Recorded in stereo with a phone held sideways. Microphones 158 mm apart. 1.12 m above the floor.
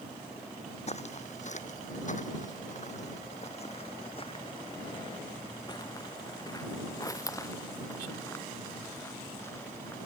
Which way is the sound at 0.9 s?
45° left (ahead or behind).